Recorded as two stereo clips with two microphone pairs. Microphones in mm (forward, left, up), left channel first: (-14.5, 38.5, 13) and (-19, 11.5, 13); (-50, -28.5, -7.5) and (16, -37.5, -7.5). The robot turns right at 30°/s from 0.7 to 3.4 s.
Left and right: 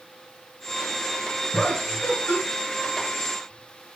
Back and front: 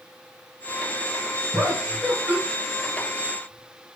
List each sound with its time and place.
1.5 s laughter: 25° left, 3.5 m; by 2.4 s 55° left, 3.5 m